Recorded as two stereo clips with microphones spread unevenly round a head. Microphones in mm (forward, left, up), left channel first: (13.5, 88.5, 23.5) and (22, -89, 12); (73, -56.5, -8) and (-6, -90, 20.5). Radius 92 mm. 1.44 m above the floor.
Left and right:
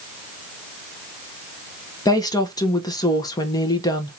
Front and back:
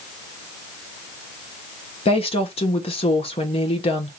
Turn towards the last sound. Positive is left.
turn(degrees=25)